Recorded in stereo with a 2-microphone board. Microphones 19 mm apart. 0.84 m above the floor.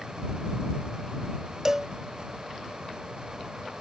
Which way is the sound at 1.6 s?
25° right (ahead or behind).